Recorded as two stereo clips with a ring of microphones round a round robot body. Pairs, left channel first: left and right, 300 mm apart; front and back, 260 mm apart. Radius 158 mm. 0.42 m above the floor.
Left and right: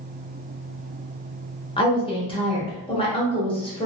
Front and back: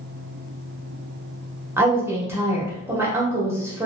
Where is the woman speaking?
120° left, 1.1 m.